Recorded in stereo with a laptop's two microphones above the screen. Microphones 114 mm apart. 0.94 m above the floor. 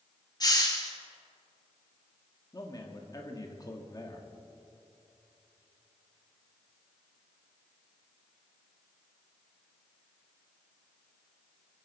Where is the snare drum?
I don't hear a snare drum.